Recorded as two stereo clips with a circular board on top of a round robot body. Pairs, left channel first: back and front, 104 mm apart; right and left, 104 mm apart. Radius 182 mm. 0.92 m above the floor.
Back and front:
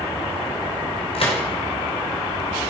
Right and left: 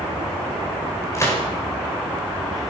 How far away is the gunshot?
About 5.5 m.